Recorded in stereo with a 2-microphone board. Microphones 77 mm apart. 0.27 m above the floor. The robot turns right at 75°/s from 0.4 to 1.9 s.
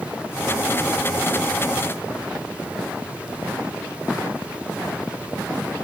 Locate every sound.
Only background noise.